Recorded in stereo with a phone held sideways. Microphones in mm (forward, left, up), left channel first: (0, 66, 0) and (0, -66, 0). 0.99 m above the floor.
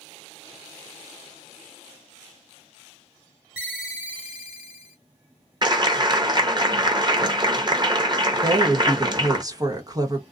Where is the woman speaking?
30° right (ahead or behind), 1.0 m.